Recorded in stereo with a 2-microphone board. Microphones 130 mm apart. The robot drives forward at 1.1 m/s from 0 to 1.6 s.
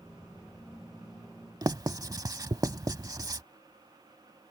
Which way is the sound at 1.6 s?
30° right (ahead or behind).